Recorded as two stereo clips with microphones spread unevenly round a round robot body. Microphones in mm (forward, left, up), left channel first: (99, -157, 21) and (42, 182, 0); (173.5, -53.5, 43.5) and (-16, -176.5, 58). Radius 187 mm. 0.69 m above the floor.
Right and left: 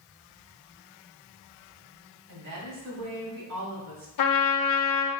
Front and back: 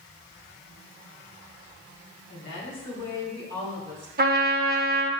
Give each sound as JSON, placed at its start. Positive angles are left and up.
{"t": 2.3, "sound": "a woman speaking", "azimuth_deg": 75, "distance_m": 2.0}
{"t": 4.2, "sound": "a trumpet", "azimuth_deg": -105, "distance_m": 0.6}